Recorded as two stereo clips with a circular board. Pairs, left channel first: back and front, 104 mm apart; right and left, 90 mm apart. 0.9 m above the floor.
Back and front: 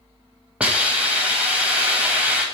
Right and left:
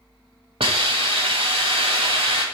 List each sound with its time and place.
0.6 s a hiss: 80° left, 1.5 m